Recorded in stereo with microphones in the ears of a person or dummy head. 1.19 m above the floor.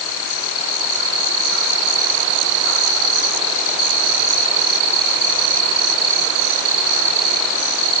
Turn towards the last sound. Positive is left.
No sound to turn to.